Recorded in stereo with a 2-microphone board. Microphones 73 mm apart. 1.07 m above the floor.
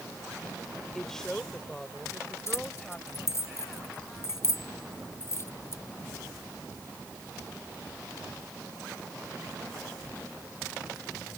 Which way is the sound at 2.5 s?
40° left (ahead or behind).